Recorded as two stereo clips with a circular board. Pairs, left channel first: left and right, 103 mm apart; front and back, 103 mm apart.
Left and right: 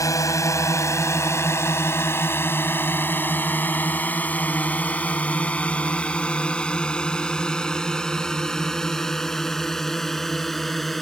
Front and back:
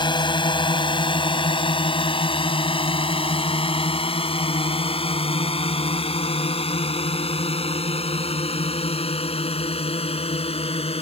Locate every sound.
0.0 s a drone: 35° left; by 11.0 s straight ahead